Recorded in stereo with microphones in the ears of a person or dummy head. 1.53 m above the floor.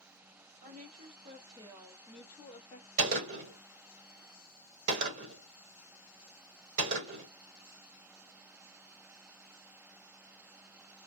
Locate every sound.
0.6 s a woman speaking: 45° right (ahead or behind), 1.2 m; by 2.9 s 35° left (ahead or behind), 0.7 m
3.0 s a gunshot: 40° right (ahead or behind), 1.3 m